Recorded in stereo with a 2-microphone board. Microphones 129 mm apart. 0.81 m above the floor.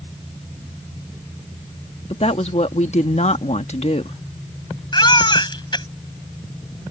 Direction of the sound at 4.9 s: 35° left (ahead or behind).